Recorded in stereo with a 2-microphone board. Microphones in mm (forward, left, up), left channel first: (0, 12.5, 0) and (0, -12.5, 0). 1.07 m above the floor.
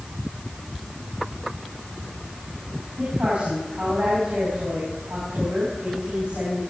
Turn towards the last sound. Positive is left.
turn(degrees=-70)  # may be behind; listen again after turning